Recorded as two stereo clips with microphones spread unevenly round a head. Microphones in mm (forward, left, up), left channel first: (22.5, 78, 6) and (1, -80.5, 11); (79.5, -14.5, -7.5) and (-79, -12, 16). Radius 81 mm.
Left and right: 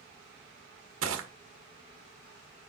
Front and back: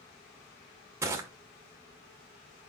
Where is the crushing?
105° right, 1.8 m.